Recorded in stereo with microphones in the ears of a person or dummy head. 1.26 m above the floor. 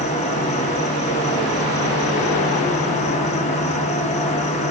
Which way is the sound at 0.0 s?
35° left (ahead or behind).